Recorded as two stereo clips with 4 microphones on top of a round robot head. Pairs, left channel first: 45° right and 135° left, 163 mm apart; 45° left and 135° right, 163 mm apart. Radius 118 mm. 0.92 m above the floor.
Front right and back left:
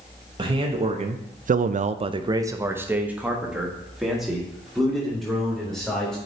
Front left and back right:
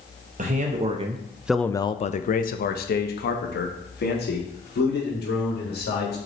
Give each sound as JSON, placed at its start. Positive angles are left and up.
{"t": 0.4, "sound": "a man speaking", "azimuth_deg": -170, "distance_m": 1.0}